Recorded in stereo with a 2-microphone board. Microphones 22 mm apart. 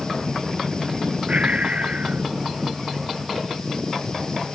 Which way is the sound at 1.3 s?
85° right.